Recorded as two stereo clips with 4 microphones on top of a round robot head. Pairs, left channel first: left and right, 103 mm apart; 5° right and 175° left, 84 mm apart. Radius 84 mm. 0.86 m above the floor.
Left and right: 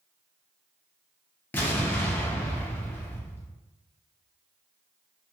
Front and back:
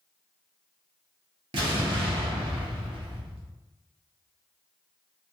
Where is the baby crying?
I don't hear a baby crying.